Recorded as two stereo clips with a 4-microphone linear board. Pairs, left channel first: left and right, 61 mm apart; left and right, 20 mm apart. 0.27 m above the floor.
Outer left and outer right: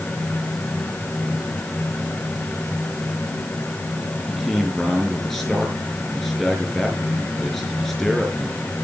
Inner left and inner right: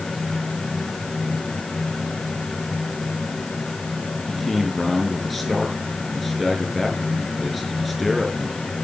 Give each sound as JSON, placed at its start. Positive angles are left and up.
{"t": 4.3, "sound": "a man speaking", "side_deg": 5, "distance_m": 5.0}